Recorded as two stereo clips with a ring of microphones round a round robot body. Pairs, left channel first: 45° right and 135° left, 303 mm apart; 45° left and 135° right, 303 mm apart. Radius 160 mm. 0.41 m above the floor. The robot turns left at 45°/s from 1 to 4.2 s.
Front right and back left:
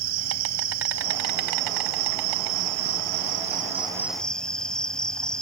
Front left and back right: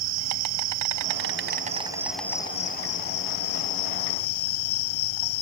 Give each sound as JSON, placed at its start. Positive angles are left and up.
{"t": 0.0, "sound": "an insect", "azimuth_deg": -175}